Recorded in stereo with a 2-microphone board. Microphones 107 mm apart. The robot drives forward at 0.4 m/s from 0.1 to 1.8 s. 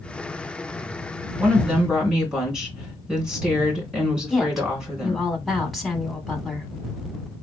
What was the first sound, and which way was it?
A woman speaking, 5° right (ahead or behind).